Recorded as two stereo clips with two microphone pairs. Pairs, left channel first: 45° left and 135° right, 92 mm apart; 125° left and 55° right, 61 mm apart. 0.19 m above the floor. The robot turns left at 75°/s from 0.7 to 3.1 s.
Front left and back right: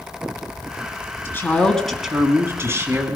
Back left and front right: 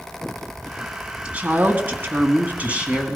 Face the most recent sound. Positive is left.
turn(degrees=-130)